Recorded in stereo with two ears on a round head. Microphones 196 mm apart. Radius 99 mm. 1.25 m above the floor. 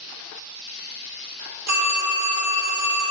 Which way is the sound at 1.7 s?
85° right.